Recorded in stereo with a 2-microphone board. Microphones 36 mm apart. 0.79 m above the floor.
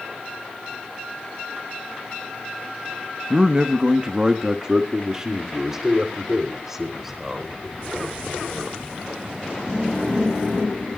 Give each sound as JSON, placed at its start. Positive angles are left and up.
{"t": 3.3, "sound": "a man speaking", "side_deg": -30, "distance_m": 0.8}